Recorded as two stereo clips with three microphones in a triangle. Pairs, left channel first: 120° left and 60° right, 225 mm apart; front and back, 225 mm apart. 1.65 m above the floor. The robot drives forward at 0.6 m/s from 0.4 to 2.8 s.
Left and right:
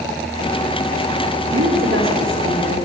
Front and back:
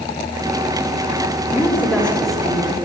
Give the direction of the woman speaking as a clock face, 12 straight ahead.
3 o'clock.